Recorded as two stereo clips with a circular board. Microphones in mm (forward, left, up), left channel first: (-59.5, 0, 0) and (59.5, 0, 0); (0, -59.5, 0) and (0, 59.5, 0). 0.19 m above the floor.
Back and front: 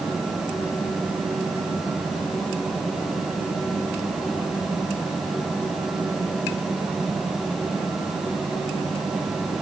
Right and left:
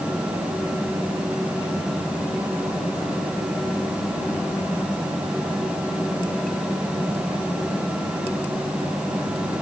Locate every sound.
Only background noise.